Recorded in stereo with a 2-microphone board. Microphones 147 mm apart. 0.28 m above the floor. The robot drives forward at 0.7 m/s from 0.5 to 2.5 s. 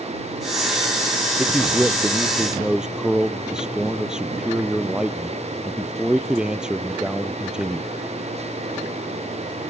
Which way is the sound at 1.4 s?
5° right (ahead or behind).